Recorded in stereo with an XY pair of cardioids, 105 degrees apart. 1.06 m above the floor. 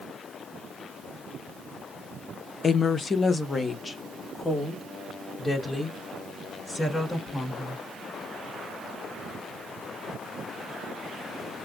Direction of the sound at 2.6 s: 40° left.